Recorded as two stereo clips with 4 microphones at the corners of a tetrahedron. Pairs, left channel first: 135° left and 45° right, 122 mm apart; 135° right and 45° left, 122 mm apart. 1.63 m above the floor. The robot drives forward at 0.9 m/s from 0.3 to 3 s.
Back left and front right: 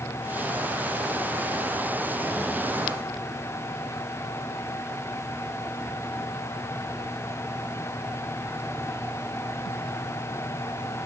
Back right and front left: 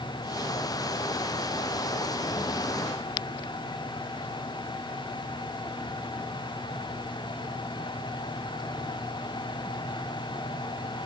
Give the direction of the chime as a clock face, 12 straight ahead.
No chime in this recording.